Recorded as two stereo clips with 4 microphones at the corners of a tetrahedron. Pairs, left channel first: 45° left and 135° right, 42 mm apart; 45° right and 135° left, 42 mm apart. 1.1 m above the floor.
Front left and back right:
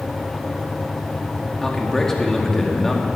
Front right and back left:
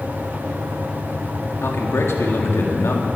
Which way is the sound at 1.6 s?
35° right.